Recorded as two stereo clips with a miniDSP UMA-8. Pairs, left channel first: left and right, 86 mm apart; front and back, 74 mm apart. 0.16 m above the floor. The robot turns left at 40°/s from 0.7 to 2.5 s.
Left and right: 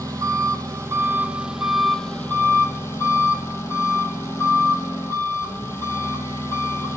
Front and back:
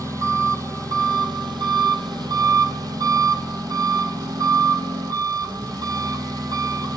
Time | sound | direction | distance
0.0 | an engine running | 135° right | 1.6 m